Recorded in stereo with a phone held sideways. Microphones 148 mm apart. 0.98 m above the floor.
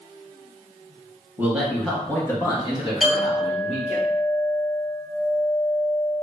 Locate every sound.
1.4 s a man speaking: 15° right (ahead or behind), 0.7 m; by 4.0 s 50° left (ahead or behind), 1.4 m
3.0 s a clink: 5° right (ahead or behind), 1.1 m